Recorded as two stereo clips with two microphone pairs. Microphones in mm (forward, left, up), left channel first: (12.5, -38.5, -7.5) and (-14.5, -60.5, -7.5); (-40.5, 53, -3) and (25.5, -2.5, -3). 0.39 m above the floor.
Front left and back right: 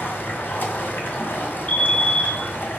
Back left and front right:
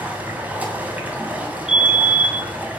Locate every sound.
0.0 s running water: 30° left, 2 m
1.7 s a fire alarm: 35° left, 1.9 m